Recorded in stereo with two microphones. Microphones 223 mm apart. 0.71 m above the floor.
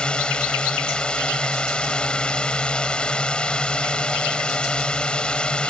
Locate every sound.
0.0 s a drone: 5° left (ahead or behind)